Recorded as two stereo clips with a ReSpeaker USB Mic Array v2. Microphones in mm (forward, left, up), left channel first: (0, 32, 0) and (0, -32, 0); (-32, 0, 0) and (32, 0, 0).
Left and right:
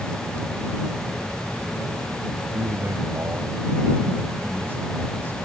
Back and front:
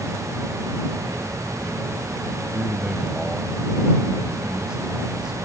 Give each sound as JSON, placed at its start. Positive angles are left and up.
{"t": 2.5, "sound": "a man speaking", "azimuth_deg": -75}